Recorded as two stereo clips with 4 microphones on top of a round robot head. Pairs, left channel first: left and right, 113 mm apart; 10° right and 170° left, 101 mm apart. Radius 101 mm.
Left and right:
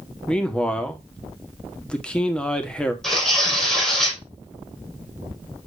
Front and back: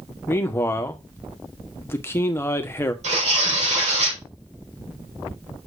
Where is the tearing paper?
175° left, 5.5 m.